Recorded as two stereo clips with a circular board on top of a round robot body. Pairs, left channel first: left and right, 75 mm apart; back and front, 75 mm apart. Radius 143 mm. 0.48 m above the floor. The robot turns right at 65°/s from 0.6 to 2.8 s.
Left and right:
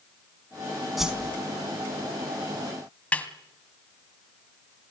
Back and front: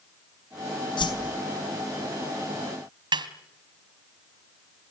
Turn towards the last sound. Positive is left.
turn(degrees=15)